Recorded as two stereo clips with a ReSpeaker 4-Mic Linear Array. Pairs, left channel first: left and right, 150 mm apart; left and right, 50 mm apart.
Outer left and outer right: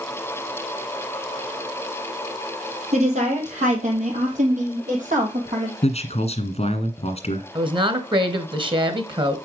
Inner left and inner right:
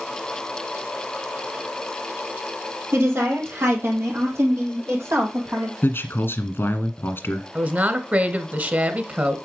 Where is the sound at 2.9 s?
50° right (ahead or behind), 4.5 m; by 5.7 s 60° right (ahead or behind), 6.5 m.